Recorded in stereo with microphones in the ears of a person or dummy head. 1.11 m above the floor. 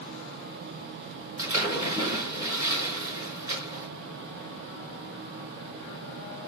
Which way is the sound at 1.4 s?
15° right (ahead or behind).